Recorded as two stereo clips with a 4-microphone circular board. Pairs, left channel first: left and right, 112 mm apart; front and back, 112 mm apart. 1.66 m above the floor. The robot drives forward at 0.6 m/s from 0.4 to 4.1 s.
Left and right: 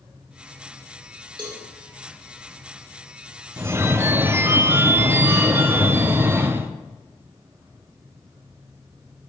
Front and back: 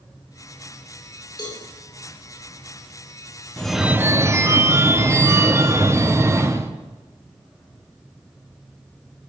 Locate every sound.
1.4 s a cowbell: 45° right, 2.5 m; by 1.6 s 50° right, 2.5 m
3.6 s a phone ringing: 70° right, 0.5 m; by 6.7 s 140° right, 0.6 m